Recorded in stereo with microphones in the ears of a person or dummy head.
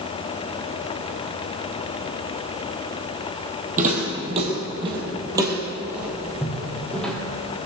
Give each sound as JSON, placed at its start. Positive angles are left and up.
{"t": 3.8, "sound": "footsteps", "side_deg": -45, "distance_m": 3.0}